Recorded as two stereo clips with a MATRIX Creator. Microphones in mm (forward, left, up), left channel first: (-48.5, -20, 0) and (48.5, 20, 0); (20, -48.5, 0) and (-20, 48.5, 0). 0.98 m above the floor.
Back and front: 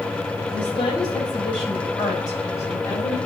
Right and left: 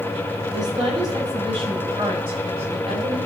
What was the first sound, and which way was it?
A woman speaking, 165° left.